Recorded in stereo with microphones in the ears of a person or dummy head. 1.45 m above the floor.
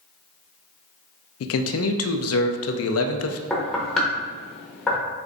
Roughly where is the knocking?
Centre.